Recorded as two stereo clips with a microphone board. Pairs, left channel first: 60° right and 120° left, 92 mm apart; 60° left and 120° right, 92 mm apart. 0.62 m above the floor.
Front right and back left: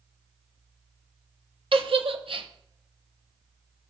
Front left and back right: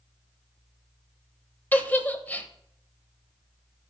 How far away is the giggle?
About 0.7 m.